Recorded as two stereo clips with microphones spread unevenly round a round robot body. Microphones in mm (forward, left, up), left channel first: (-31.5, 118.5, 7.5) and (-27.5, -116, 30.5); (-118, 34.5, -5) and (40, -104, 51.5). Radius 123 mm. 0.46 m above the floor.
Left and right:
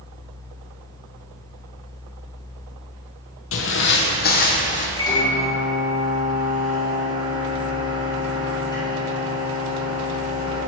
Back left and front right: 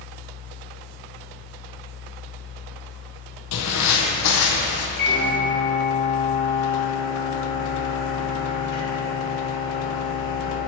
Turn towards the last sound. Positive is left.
turn(degrees=165)